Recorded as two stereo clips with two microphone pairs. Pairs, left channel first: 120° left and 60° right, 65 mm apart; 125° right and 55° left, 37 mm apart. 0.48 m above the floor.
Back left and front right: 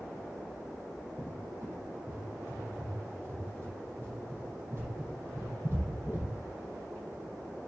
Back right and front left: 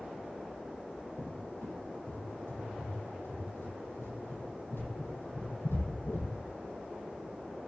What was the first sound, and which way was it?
A cupboard door, 115° right.